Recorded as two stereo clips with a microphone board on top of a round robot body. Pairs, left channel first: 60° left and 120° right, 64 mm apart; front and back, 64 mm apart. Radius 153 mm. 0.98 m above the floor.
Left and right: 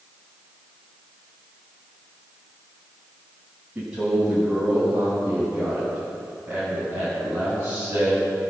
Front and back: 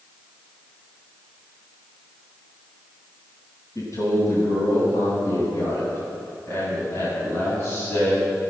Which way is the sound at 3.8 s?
45° right.